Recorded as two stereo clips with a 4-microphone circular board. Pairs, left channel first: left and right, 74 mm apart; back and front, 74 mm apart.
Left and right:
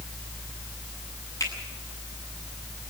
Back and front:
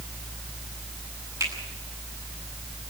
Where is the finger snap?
40° left, 8.5 m.